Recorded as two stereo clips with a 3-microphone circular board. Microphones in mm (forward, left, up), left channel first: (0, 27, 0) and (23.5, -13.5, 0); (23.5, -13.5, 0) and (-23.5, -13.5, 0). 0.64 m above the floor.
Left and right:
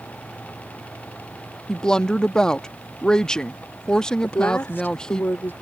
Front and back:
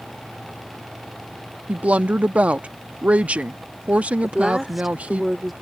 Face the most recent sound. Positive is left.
turn(degrees=90)